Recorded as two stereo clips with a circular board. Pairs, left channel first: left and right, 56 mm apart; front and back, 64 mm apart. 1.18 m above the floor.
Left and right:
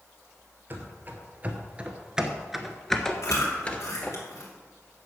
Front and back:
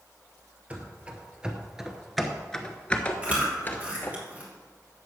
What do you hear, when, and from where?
0.7 s running footsteps: 120° right, 1.6 m; by 4.2 s 45° left, 1.5 m
3.2 s chewing: 110° left, 3 m